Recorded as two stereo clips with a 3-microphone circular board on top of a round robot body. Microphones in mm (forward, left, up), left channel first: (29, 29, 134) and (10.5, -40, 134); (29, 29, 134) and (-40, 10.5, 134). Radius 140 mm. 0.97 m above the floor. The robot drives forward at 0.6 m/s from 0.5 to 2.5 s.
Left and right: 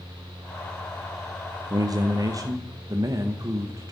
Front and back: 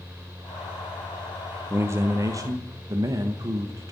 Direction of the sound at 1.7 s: 115° right.